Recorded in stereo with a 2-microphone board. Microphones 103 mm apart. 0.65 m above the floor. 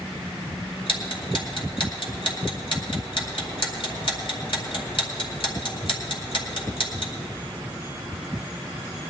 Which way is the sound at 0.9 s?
55° left (ahead or behind).